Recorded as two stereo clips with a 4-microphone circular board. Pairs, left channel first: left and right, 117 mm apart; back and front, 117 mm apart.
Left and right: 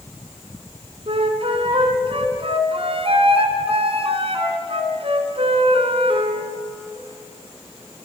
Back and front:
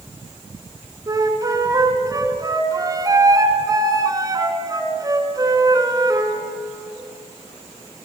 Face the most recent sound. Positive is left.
turn(degrees=-55)